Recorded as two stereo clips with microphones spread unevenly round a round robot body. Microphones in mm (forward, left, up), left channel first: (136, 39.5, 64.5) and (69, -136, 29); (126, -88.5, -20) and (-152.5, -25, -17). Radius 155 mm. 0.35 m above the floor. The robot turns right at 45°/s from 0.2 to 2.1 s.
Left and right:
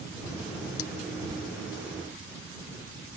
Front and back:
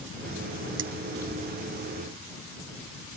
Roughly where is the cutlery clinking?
Left.